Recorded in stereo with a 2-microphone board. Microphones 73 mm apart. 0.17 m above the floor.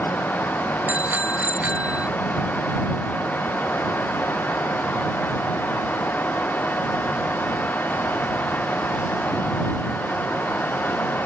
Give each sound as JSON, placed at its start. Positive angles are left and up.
{"t": 0.9, "sound": "a bicycle bell", "side_deg": -20}